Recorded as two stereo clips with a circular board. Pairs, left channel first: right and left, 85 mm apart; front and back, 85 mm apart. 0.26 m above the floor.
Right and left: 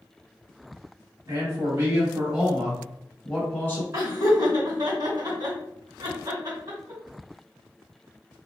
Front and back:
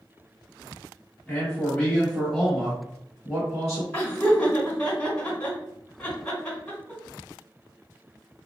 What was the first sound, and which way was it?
A man speaking, 65° left.